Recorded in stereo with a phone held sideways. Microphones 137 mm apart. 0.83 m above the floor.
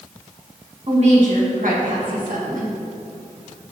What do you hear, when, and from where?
0.9 s a woman speaking: 50° right (ahead or behind), 1.5 m; by 2.8 s 75° right (ahead or behind), 1.8 m